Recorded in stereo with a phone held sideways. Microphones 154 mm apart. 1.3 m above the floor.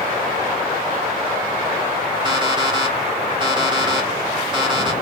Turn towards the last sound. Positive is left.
turn(degrees=-30)  # may be behind; listen again after turning